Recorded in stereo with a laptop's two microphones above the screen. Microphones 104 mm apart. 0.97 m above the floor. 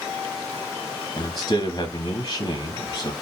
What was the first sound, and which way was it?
A man speaking, 35° left (ahead or behind).